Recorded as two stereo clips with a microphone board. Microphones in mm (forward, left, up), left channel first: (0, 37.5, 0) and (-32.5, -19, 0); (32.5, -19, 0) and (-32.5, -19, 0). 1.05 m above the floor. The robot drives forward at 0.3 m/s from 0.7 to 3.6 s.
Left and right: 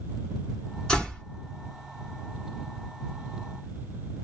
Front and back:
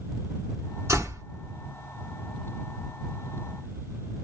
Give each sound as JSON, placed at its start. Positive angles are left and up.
{"t": 0.9, "sound": "a door slam", "azimuth_deg": 135, "distance_m": 2.5}